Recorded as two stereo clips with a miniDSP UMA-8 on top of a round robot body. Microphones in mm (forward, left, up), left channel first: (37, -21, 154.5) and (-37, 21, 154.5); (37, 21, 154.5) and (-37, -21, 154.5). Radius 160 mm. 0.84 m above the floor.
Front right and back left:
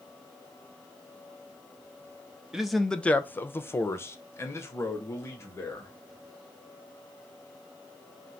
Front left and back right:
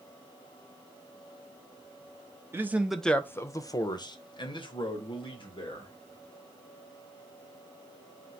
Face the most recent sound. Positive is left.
turn(degrees=30)